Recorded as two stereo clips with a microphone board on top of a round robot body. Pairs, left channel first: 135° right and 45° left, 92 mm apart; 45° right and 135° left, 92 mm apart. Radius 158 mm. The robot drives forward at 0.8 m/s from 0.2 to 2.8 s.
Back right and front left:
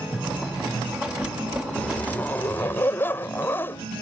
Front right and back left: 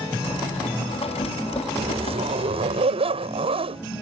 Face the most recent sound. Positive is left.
turn(degrees=155)